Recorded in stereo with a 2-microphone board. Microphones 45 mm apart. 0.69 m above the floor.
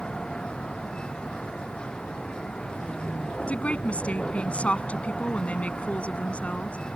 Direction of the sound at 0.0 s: 20° left (ahead or behind).